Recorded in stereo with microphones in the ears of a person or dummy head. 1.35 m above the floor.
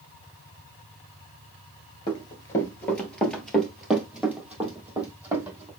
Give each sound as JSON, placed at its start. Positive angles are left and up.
{"t": 2.1, "sound": "running footsteps", "side_deg": 25, "distance_m": 1.4}